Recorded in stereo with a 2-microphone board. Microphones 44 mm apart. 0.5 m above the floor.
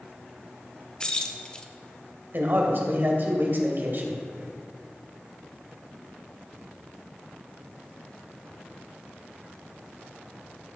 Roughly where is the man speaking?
Right.